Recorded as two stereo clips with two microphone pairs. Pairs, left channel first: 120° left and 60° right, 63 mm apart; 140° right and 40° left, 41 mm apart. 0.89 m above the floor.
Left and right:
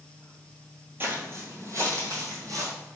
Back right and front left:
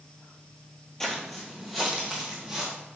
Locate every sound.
1.0 s footsteps: 65° right, 1.0 m; by 2.7 s 40° right, 1.9 m